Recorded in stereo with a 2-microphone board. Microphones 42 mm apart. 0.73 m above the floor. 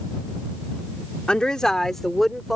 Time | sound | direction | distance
1.3 | a woman speaking | 20° left (ahead or behind) | ?